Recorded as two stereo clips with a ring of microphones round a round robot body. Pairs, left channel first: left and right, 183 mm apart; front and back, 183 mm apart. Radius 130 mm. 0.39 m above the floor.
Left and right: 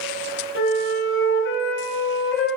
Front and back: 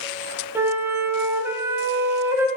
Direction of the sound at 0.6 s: 105° left.